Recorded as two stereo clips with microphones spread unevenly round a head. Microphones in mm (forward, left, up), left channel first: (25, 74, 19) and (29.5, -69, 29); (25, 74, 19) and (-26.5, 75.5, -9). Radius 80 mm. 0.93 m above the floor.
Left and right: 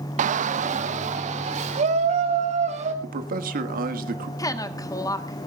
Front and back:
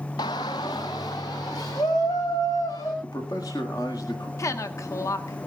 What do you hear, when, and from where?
0.2 s a shout: 55° right, 0.5 m; by 2.9 s 50° right, 4.5 m
3.0 s a man speaking: 70° right, 1.6 m
4.4 s a woman speaking: 25° left, 1.4 m